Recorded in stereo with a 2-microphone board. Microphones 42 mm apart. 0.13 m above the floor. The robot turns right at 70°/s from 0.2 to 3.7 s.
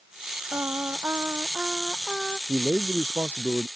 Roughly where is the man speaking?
Behind.